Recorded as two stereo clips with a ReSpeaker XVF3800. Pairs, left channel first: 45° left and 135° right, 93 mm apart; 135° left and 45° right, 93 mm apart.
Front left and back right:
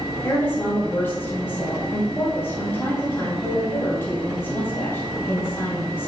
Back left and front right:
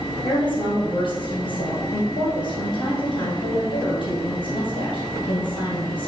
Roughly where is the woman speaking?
Left.